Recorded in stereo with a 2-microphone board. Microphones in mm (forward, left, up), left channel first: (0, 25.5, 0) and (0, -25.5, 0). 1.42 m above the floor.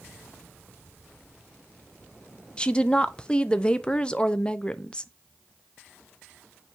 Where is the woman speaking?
20° left (ahead or behind), 0.5 m.